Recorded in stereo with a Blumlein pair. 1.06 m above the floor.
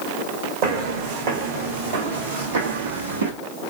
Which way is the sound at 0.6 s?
45° right.